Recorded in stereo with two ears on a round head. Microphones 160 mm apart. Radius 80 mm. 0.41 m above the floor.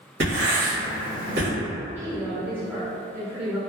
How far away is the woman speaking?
About 0.9 m.